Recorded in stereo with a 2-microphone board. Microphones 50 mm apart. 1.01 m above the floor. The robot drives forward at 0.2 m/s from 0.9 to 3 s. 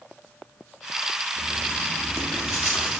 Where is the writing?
60° left (ahead or behind), 0.7 m.